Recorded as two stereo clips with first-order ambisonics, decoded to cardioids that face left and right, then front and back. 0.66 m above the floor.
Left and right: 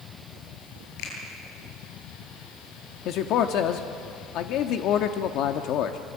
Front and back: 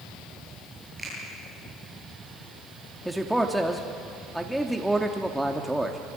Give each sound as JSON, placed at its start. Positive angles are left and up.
{"t": 1.0, "sound": "a finger snap", "azimuth_deg": 90, "distance_m": 9.5}
{"t": 3.0, "sound": "a man speaking", "azimuth_deg": 95, "distance_m": 1.1}